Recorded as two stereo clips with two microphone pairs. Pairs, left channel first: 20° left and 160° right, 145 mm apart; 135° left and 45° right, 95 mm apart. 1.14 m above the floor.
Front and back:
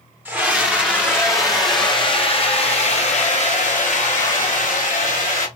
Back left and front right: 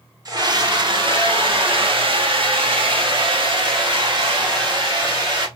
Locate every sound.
0.2 s a scream: 85° right, 1.2 m; by 5.5 s 5° right, 3 m